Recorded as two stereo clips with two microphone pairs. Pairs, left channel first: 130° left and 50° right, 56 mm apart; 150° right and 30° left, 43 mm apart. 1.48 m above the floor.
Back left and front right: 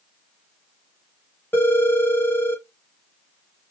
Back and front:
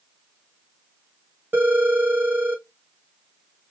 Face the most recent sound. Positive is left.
turn(degrees=70)